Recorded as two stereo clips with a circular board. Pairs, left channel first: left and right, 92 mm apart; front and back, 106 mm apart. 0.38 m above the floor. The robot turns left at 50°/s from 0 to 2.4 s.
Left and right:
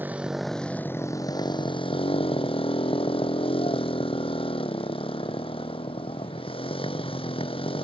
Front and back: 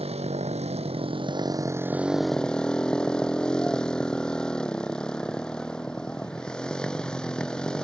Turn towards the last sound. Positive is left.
turn(degrees=85)